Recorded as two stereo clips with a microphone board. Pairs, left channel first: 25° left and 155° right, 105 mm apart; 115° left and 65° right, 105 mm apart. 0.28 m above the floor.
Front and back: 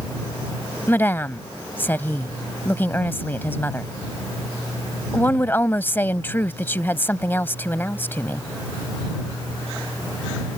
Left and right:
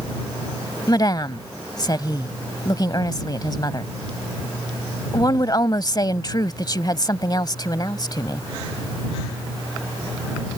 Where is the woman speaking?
85° left.